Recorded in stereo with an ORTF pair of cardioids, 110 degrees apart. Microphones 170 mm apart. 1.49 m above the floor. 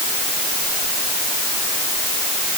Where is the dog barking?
I don't hear a dog barking.